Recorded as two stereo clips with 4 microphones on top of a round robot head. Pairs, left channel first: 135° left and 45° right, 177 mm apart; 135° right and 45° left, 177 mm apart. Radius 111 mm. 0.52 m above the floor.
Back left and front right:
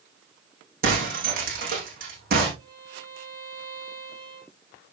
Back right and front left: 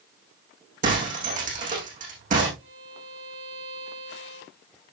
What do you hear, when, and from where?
0.8 s breaking glass: 5° right, 7 m
2.6 s a violin: 20° left, 9.5 m